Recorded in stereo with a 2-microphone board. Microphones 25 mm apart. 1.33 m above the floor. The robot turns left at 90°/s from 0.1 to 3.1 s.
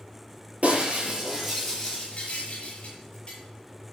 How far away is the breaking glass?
About 8 m.